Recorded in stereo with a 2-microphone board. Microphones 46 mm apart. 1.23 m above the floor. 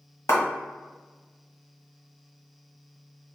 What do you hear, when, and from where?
0.3 s a clap: 65° left (ahead or behind), 1.2 m